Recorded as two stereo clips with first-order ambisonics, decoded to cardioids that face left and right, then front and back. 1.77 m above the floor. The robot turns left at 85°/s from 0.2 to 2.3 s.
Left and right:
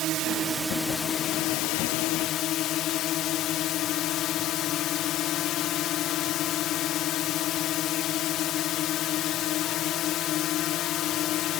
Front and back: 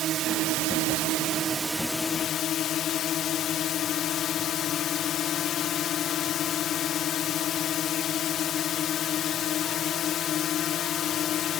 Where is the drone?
130° right; by 11.6 s 50° left.